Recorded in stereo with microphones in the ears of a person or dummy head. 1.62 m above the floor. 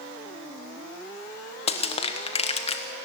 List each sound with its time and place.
1.7 s crushing: 35° left (ahead or behind), 1.2 m